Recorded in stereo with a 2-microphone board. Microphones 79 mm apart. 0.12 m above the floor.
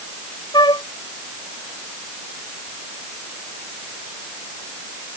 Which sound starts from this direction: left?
A flute, at 0.5 s.